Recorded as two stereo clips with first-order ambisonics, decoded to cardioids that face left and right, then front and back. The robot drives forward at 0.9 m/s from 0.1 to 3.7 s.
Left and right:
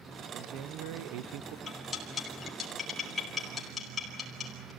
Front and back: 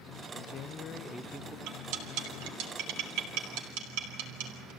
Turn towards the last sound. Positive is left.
turn(degrees=165)